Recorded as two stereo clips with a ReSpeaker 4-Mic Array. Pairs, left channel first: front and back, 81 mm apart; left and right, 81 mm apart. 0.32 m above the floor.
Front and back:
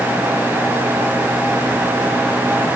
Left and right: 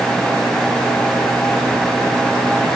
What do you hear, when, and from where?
Only background noise.